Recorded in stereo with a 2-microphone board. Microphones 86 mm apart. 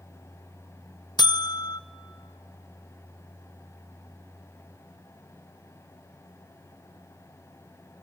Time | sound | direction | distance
1.2 | a buzzer | 55° left (ahead or behind) | 0.7 m